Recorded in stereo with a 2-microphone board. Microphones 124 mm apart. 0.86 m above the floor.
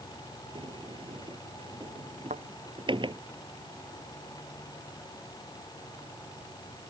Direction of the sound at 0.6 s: 40° right (ahead or behind).